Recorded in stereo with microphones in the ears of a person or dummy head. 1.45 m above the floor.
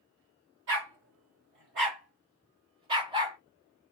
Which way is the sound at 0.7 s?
50° right (ahead or behind).